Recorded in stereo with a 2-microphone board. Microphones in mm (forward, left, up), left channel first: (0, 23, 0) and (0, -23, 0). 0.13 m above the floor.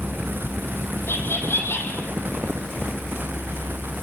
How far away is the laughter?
About 4.5 m.